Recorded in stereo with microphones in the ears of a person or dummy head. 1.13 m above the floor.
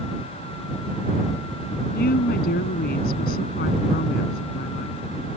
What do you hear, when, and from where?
1.9 s a woman speaking: 50° left (ahead or behind)